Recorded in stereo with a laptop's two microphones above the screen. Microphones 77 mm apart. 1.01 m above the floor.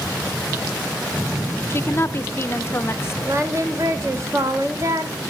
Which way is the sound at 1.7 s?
35° left (ahead or behind).